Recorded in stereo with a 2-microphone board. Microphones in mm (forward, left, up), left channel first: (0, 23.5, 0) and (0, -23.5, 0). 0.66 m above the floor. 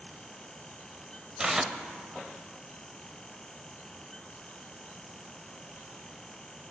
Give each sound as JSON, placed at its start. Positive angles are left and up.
{"t": 1.4, "sound": "tearing paper", "side_deg": -15, "distance_m": 0.7}